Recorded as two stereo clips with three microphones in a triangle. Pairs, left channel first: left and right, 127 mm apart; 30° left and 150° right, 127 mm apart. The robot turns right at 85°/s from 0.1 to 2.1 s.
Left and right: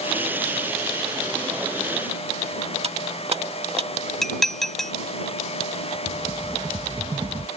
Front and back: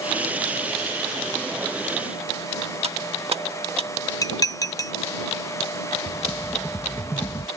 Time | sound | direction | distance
2.8 | cutlery clinking | 120° right | ?
4.2 | dishes clattering | 5° left | ?
6.1 | a rattle | 45° right | ?